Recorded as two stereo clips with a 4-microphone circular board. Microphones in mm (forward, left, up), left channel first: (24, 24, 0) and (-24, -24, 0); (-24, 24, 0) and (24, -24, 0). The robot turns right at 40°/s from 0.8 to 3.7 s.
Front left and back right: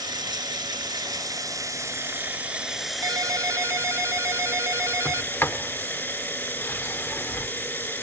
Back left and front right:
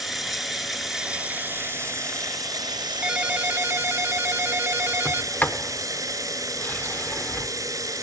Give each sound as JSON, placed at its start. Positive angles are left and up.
{"t": 0.0, "sound": "running water", "azimuth_deg": -130, "distance_m": 1.8}
{"t": 3.0, "sound": "a ringtone", "azimuth_deg": -125, "distance_m": 0.6}
{"t": 5.0, "sound": "a sliding door", "azimuth_deg": 85, "distance_m": 0.9}